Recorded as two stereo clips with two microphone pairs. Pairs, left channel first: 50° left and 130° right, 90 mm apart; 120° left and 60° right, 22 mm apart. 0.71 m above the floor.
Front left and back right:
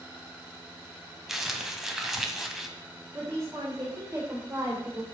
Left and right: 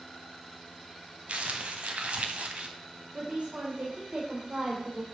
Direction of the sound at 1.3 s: 45° right.